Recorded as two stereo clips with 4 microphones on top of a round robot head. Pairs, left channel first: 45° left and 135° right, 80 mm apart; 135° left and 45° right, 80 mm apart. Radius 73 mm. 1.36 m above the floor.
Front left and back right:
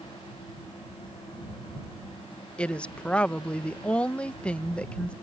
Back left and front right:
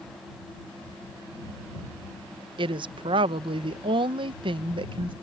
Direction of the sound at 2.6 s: 30° right.